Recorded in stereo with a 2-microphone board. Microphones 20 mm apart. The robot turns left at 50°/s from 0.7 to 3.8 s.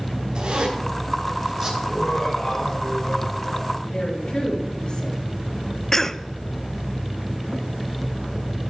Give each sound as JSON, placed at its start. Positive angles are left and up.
{"t": 0.3, "sound": "a zipper", "side_deg": -60, "distance_m": 4.5}
{"t": 1.8, "sound": "laughter", "azimuth_deg": 180, "distance_m": 3.5}
{"t": 3.8, "sound": "a woman speaking", "side_deg": 55, "distance_m": 5.5}
{"t": 5.9, "sound": "a cough", "side_deg": 25, "distance_m": 0.5}